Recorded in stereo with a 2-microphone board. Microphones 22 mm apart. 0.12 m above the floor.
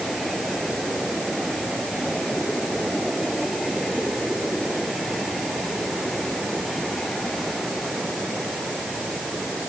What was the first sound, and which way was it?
Only background noise.